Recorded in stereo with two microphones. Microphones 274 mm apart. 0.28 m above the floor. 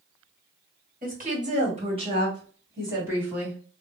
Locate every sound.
1.0 s a woman speaking: 30° right (ahead or behind), 1.8 m; by 3.6 s 5° right (ahead or behind), 2.5 m